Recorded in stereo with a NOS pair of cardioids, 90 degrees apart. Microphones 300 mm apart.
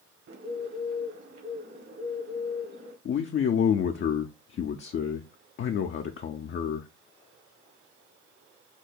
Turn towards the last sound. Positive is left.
turn(degrees=40)